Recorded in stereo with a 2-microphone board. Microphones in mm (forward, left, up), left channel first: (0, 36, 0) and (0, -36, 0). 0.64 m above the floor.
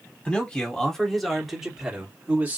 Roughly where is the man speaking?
Centre.